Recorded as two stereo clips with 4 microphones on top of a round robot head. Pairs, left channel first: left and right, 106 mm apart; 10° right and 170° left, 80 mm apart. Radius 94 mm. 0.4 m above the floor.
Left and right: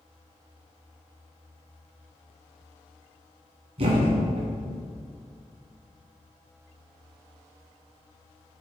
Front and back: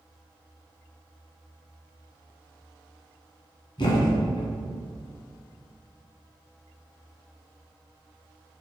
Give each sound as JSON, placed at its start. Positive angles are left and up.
{"t": 3.8, "sound": "a thud", "azimuth_deg": -50, "distance_m": 2.0}